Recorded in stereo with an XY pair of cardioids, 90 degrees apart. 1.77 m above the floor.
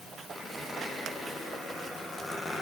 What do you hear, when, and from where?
0.3 s a squeak: 15° left, 10 m